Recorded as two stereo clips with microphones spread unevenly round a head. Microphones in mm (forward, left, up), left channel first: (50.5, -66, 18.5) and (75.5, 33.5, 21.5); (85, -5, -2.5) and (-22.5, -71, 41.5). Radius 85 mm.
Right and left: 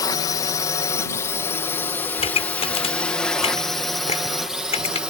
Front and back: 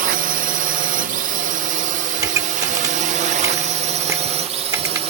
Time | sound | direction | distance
0.0 | a drone | 150° right | ?
2.2 | a pop | 85° right | ?